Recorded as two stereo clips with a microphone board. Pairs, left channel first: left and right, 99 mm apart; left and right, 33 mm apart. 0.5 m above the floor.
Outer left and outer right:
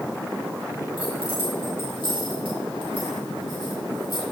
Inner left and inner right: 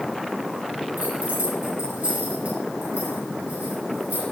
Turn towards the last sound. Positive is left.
turn(degrees=-60)  # may be behind; listen again after turning